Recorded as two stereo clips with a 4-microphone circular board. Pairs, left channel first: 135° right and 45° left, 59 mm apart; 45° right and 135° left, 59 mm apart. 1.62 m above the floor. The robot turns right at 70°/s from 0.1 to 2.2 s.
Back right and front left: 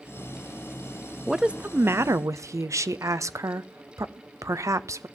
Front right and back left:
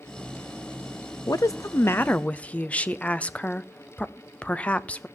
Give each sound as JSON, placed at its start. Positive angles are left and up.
{"t": 1.3, "sound": "a woman speaking", "azimuth_deg": -45, "distance_m": 0.5}